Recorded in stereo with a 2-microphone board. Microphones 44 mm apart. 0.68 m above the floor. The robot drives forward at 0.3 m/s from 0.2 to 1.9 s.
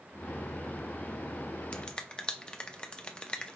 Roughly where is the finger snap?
Left.